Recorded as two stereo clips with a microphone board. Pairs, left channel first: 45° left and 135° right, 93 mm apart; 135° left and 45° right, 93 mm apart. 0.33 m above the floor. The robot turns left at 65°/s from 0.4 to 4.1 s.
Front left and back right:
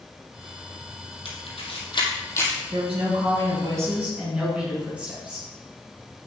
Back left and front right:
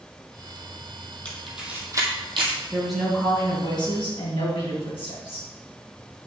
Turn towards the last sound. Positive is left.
turn(degrees=150)